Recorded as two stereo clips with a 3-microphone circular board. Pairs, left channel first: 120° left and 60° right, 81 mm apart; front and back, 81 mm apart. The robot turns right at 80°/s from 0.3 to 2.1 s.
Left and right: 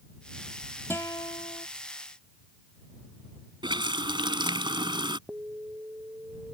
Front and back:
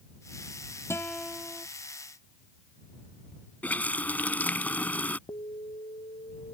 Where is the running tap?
70° right.